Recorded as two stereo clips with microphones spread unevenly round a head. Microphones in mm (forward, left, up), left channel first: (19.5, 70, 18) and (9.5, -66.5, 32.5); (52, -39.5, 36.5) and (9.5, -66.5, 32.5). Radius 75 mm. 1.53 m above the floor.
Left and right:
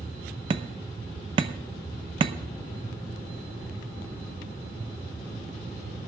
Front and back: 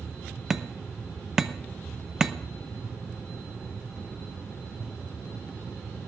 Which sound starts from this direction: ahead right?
Hammering, at 0.5 s.